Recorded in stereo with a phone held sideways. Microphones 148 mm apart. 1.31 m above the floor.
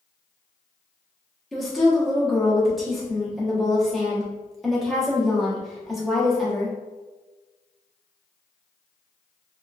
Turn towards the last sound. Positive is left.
turn(degrees=0)  # may be behind; listen again after turning